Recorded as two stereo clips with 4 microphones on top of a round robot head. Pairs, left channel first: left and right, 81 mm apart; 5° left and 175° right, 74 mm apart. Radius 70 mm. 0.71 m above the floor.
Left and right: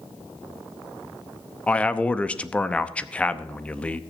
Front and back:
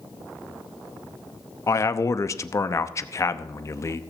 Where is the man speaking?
20° left, 0.8 m.